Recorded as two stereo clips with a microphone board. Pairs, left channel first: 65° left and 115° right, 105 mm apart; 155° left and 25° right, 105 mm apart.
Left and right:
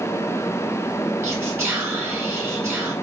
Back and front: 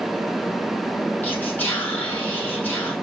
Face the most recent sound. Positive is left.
turn(degrees=-150)